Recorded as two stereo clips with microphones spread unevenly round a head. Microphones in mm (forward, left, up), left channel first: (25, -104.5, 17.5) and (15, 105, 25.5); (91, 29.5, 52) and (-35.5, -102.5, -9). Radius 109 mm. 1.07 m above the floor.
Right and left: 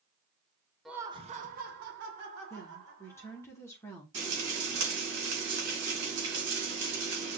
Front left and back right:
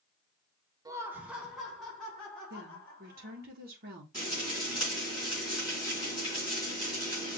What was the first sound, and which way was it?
Laughter, 175° right.